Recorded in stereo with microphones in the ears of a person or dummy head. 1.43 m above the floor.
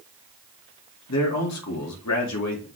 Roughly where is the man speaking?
Left.